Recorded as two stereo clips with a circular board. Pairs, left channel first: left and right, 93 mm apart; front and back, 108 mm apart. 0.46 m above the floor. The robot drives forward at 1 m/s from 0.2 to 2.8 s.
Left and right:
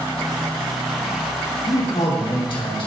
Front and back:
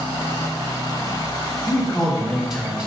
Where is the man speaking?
75° left, 3 m; by 2.9 s 100° left, 3 m.